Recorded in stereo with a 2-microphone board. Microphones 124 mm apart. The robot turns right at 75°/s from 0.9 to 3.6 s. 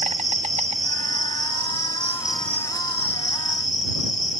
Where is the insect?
110° right; by 4.4 s 95° left.